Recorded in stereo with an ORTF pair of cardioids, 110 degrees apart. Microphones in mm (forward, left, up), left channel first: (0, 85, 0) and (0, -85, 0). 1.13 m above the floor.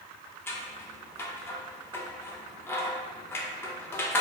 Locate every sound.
0.5 s scissors: 15° left, 0.7 m